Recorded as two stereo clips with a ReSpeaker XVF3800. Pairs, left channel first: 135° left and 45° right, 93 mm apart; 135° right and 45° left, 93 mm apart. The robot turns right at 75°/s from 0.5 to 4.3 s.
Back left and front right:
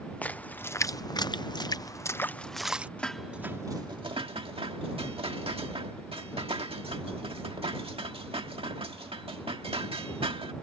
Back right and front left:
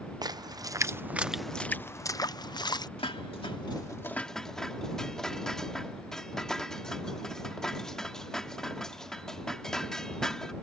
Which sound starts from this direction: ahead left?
A splash, at 0.2 s.